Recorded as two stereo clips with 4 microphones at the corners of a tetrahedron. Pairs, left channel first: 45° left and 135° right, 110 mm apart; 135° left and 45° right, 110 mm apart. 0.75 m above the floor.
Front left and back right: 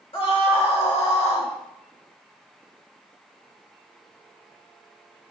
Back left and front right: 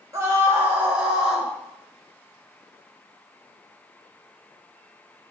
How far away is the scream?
About 3 m.